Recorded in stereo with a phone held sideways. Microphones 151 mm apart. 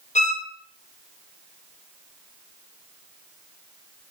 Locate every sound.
0.1 s a violin: 50° left (ahead or behind), 0.9 m